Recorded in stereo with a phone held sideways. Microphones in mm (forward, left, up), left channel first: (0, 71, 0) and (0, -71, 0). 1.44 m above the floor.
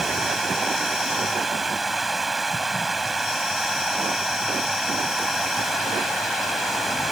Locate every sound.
0.0 s running water: centre (ahead or behind)